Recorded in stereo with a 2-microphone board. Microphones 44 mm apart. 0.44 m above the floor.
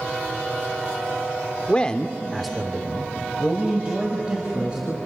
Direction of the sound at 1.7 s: 25° left (ahead or behind).